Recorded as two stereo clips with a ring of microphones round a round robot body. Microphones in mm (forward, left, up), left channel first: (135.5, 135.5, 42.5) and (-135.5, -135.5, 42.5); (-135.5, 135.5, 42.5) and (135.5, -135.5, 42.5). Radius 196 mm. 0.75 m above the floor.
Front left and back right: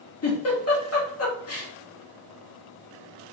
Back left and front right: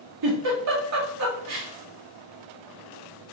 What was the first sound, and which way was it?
A giggle, 5° right.